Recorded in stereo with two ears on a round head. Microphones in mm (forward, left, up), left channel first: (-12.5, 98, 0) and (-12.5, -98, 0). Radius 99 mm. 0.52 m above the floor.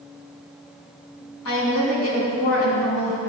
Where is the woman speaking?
80° left, 5.5 m.